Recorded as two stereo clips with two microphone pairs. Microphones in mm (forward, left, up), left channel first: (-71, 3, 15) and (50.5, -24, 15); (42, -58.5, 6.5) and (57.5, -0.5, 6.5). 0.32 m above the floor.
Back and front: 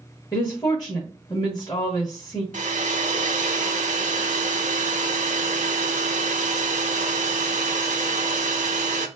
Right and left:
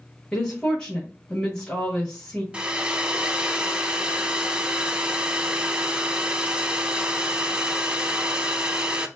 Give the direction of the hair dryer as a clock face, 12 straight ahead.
12 o'clock.